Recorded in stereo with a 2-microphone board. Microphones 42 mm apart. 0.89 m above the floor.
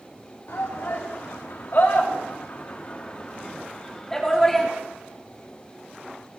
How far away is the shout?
About 2.5 m.